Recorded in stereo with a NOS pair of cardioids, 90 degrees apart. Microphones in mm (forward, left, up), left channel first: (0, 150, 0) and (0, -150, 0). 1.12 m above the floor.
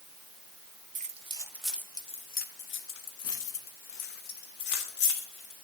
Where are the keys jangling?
25° right, 0.9 m; by 5.5 s 80° left, 2 m.